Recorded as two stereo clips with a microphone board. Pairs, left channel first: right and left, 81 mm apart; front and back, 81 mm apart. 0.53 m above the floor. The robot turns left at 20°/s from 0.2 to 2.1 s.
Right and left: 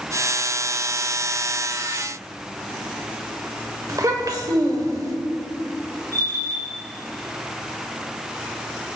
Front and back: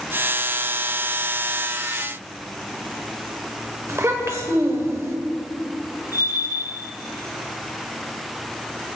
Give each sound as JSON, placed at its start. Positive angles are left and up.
{"t": 3.9, "sound": "a child speaking", "azimuth_deg": 130, "distance_m": 1.5}
{"t": 6.1, "sound": "a bell", "azimuth_deg": 45, "distance_m": 4.5}